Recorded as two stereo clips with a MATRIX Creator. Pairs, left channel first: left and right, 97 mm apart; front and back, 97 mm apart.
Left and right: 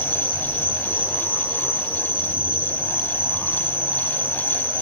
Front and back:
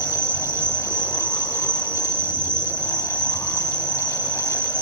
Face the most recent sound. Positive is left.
turn(degrees=-150)